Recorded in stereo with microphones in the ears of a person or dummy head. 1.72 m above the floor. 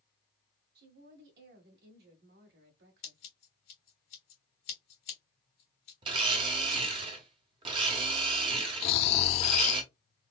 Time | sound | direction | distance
0.8 | a woman speaking | 65° right (ahead or behind) | 1.7 m
3.0 | scissors | 35° left (ahead or behind) | 1.7 m
6.0 | a blender | 30° right (ahead or behind) | 0.8 m
8.8 | snoring | 35° left (ahead or behind) | 0.6 m